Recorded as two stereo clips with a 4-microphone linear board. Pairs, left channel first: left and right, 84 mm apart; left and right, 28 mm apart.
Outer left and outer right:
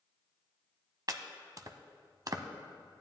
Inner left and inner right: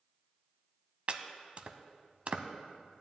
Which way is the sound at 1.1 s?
45° right (ahead or behind).